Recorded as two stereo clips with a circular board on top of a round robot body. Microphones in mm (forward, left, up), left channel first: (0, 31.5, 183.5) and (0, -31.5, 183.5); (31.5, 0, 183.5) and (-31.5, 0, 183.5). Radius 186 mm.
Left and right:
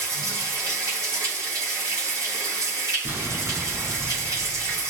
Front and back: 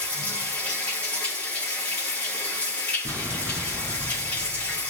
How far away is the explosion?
About 7 m.